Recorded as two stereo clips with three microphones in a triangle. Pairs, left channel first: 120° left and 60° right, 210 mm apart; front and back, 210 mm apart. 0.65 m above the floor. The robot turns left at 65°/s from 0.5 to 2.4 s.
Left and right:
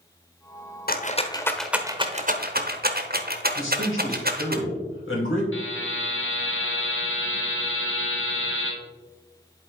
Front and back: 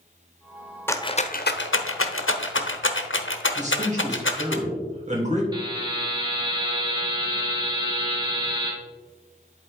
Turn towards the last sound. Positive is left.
turn(degrees=110)